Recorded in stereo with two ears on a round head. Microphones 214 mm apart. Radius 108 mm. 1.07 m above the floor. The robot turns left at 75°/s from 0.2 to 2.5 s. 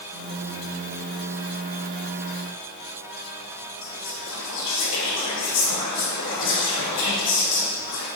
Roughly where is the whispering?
Left.